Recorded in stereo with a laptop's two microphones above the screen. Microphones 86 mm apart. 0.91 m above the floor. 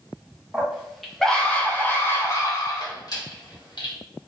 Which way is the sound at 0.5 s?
10° right (ahead or behind).